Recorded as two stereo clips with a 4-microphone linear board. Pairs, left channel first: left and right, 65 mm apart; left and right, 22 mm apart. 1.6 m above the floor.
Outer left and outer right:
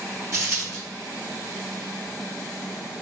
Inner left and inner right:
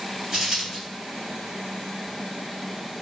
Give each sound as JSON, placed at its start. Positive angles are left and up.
{"t": 0.3, "sound": "a dropped coin", "side_deg": -40, "distance_m": 1.9}